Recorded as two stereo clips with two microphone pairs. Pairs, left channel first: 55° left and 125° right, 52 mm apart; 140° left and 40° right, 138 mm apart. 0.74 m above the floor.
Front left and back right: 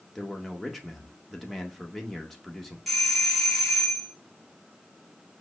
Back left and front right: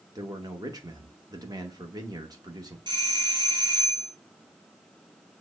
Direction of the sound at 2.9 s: 35° right.